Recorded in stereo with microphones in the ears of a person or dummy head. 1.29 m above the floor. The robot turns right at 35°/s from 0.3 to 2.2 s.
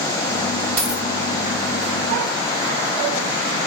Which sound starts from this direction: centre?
A dropped coin, at 0.8 s.